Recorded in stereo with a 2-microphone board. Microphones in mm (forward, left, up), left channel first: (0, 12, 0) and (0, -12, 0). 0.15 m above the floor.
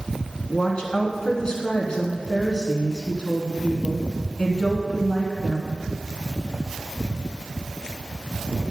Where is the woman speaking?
40° left (ahead or behind), 1.3 m.